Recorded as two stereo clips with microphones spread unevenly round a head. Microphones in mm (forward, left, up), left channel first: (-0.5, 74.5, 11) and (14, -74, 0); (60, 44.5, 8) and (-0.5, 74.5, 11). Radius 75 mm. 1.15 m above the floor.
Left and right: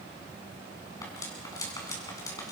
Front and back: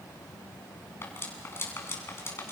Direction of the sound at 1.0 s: 30° left.